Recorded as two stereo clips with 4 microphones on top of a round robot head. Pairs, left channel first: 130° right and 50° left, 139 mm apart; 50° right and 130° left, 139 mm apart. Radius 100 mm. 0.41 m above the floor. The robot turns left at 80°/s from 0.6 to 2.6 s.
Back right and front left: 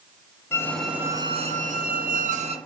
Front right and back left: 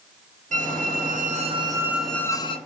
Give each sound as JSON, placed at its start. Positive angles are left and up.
{"t": 0.5, "sound": "a squeak", "azimuth_deg": 155, "distance_m": 1.2}